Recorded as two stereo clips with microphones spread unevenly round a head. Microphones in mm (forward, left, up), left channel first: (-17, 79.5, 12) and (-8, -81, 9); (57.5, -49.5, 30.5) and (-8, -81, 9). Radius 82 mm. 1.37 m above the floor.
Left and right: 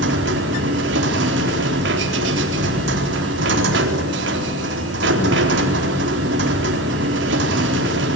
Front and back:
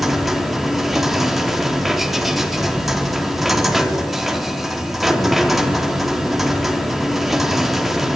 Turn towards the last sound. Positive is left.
turn(degrees=-65)